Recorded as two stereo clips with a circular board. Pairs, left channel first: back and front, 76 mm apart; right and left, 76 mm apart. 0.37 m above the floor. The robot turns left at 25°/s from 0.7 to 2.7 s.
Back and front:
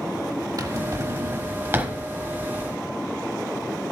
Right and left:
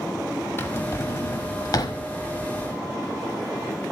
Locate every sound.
0.6 s a drawer: 35° right, 0.9 m; by 2.0 s 65° right, 0.9 m